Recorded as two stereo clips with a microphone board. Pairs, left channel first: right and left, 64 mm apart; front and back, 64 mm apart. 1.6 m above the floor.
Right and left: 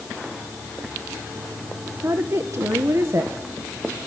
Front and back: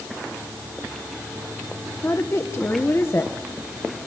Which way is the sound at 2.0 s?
50° left.